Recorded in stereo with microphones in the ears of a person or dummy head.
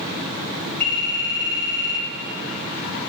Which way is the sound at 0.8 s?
55° left (ahead or behind).